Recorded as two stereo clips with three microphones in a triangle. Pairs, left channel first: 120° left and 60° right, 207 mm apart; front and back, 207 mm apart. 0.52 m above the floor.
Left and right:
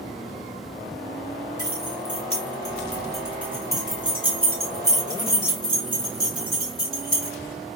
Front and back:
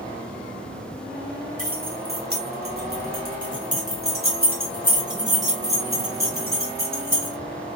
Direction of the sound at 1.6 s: 145° left.